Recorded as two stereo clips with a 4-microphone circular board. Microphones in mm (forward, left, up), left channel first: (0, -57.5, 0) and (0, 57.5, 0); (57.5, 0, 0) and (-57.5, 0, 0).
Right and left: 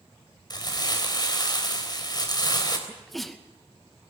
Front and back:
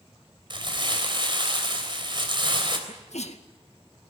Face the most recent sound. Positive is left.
turn(degrees=0)